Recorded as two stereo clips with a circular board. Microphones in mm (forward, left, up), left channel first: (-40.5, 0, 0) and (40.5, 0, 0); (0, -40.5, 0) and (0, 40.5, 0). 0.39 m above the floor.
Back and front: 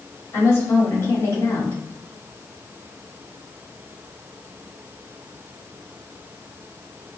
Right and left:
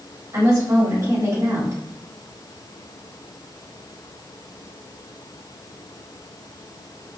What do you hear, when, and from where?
0.3 s a woman speaking: 130° left, 1.9 m